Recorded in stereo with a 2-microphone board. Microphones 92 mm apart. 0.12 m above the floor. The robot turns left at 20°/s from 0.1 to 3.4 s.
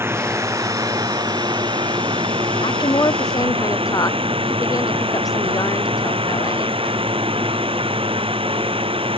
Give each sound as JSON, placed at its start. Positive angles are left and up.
{"t": 0.0, "sound": "a drone", "azimuth_deg": -25}
{"t": 2.6, "sound": "a woman speaking", "side_deg": 55}